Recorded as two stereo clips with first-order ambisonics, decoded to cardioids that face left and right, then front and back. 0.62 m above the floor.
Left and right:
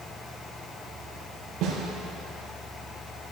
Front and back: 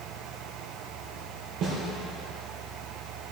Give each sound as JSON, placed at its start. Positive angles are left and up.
{"t": 1.6, "sound": "a snare drum", "azimuth_deg": -140, "distance_m": 4.0}